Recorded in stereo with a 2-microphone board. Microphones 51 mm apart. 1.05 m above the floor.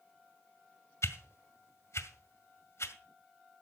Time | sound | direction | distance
1.0 | a whoosh | 65° left (ahead or behind) | 1.7 m